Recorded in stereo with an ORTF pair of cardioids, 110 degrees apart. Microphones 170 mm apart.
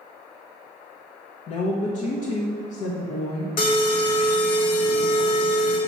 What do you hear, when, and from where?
1.5 s a woman speaking: 55° left, 0.9 m
3.6 s an alarm: 65° left, 1.5 m